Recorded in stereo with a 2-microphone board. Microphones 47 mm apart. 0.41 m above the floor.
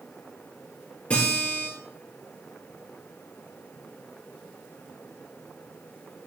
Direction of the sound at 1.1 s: 25° left (ahead or behind).